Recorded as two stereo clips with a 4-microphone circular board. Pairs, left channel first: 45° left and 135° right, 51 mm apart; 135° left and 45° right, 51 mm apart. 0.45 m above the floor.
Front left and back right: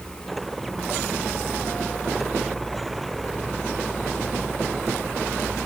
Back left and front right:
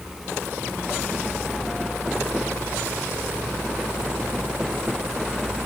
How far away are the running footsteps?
No running footsteps in this recording.